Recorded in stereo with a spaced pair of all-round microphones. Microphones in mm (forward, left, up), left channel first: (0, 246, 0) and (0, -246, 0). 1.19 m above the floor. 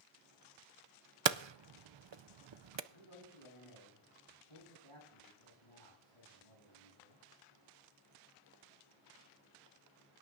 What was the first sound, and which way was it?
Hammering, 60° right (ahead or behind).